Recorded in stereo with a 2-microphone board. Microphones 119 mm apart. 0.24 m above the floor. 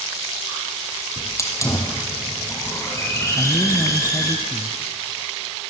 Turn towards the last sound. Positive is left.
turn(degrees=40)  # may be behind; listen again after turning